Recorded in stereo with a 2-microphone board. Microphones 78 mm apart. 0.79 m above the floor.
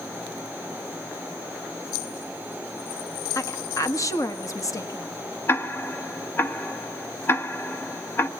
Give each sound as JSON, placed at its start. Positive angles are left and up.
{"t": 3.4, "sound": "a woman speaking", "side_deg": 45, "distance_m": 1.2}
{"t": 5.5, "sound": "ticking", "side_deg": 30, "distance_m": 0.9}